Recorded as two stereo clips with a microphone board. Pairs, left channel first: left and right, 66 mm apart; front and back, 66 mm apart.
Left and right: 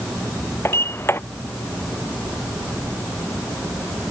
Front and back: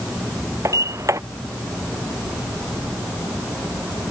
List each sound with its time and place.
0.7 s a sliding door: 140° left